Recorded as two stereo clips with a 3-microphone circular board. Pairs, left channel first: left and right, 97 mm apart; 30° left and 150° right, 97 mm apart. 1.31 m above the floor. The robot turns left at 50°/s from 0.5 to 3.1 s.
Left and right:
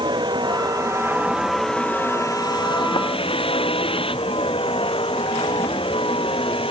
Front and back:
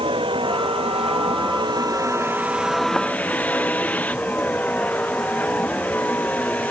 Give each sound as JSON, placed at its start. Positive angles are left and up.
{"t": 0.0, "sound": "a vehicle", "azimuth_deg": -125}